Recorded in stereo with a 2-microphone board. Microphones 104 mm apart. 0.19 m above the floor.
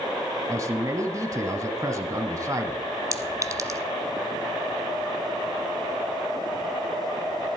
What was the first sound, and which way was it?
A man speaking, 30° right (ahead or behind).